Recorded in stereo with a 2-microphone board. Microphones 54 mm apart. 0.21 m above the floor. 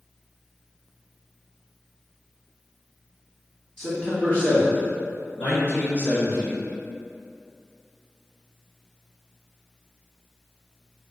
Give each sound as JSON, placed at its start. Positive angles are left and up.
{"t": 3.8, "sound": "a man speaking", "side_deg": 20, "distance_m": 1.3}